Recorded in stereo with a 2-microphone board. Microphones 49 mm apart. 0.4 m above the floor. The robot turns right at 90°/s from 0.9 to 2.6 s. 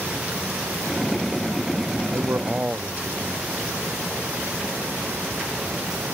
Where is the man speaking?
70° right; by 3.5 s 25° right.